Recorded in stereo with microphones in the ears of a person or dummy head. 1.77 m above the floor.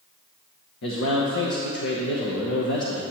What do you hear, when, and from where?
0.8 s a man speaking: 65° left (ahead or behind), 0.9 m